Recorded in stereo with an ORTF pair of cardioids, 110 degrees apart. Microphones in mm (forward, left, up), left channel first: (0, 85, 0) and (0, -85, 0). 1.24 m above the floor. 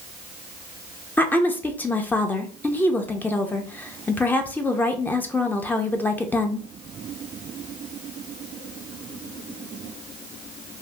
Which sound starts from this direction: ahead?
A woman speaking, at 1.2 s.